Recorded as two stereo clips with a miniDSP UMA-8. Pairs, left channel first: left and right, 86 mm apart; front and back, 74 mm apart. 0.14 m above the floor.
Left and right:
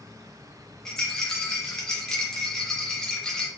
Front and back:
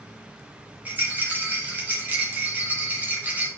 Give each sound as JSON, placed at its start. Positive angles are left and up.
{"t": 0.8, "sound": "a rattle", "azimuth_deg": 165, "distance_m": 1.7}